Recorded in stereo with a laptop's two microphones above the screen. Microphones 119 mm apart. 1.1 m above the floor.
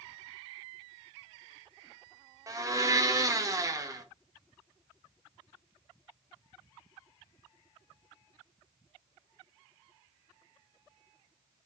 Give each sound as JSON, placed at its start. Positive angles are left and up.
{"t": 2.5, "sound": "a blender", "side_deg": -30, "distance_m": 0.7}